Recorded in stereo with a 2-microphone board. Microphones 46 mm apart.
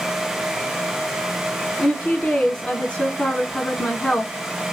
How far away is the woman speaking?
About 1.3 m.